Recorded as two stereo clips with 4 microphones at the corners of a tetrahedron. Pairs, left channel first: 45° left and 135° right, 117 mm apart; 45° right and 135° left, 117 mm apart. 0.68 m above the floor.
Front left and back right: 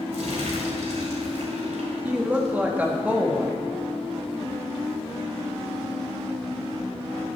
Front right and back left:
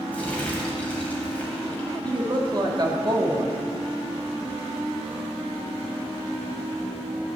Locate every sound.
0.1 s crumpling: 125° right, 2.5 m
2.0 s a woman speaking: 155° left, 1.3 m